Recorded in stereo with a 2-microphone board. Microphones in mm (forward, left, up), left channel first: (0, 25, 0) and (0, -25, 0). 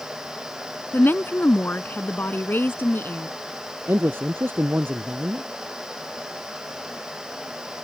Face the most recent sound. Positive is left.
turn(degrees=-50)  # may be behind; listen again after turning